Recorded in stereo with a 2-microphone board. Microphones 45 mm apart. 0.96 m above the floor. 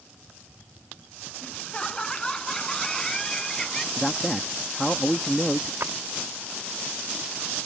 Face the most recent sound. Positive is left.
turn(degrees=-65)  # may be behind; listen again after turning